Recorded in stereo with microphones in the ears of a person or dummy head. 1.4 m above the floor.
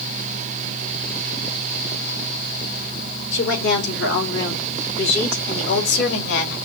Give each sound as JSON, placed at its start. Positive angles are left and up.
{"t": 3.3, "sound": "a woman speaking", "side_deg": 70, "distance_m": 4.0}